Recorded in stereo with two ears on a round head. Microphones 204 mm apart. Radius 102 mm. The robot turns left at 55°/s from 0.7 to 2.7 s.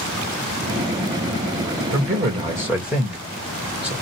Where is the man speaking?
130° right, 1.6 m; by 3.9 s 175° right, 1.6 m.